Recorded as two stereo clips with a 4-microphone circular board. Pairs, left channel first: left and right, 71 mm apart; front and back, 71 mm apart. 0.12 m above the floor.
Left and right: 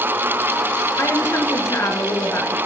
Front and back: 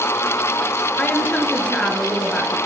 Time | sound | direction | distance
1.0 | a woman speaking | 65° left | 1.9 m